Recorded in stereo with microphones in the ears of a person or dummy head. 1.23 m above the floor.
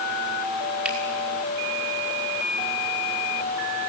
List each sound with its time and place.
0.8 s a finger snap: 5° right (ahead or behind), 6 m